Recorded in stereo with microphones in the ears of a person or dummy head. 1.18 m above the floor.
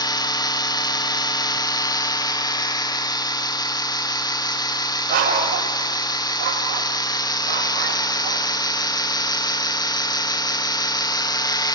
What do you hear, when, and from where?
0.0 s a machine running: 20° left (ahead or behind), 0.7 m
5.1 s a dog barking: 55° right (ahead or behind), 2.5 m